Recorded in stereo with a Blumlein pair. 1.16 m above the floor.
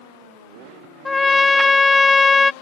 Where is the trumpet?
10° left.